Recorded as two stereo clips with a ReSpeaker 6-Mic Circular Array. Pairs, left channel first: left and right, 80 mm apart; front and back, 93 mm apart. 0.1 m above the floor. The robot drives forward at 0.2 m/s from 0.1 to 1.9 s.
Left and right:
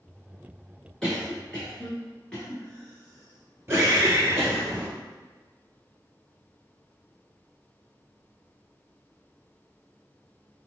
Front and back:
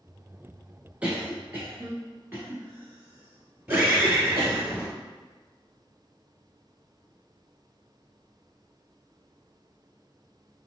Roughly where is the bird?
Behind right.